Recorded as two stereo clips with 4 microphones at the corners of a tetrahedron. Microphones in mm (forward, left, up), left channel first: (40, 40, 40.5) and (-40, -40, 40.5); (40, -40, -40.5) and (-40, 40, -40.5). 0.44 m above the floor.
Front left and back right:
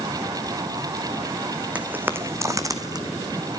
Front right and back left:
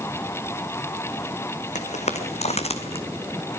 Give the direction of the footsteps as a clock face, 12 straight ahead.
2 o'clock.